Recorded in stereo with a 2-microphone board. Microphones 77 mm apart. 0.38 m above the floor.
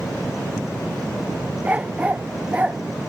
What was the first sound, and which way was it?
A dog barking, 20° right (ahead or behind).